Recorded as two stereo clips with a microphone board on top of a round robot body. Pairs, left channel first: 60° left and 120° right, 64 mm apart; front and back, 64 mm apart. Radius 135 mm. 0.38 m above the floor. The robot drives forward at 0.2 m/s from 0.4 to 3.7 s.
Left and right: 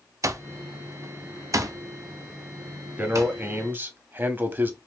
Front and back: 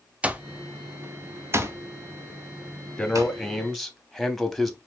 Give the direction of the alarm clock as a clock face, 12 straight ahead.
4 o'clock.